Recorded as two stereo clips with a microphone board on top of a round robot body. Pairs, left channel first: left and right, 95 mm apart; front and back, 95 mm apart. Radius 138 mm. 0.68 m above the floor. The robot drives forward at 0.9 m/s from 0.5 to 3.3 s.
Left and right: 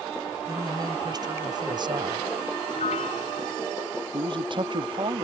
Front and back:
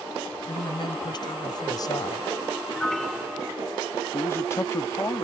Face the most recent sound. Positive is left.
turn(degrees=-60)